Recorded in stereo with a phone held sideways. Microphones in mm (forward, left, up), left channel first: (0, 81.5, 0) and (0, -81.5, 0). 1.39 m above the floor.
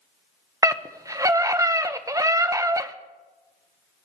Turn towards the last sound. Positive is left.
turn(degrees=-20)  # may be behind; listen again after turning